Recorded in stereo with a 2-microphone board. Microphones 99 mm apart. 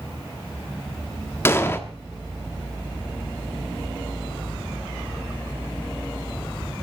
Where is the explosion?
25° left (ahead or behind), 1.3 m.